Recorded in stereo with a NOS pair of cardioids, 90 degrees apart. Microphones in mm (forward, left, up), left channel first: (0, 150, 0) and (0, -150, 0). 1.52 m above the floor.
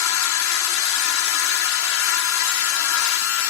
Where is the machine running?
65° left.